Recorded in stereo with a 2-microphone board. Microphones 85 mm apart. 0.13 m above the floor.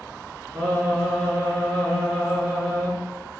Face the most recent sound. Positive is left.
turn(degrees=0)  # may be behind; listen again after turning